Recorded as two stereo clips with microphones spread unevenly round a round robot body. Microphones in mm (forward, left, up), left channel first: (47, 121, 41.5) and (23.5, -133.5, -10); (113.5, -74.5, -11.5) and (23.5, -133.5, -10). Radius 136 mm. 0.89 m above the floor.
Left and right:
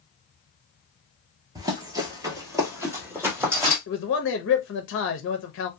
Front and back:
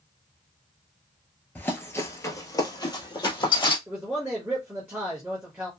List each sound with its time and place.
1.6 s running footsteps: 10° right, 0.9 m
3.9 s a man speaking: 135° left, 0.5 m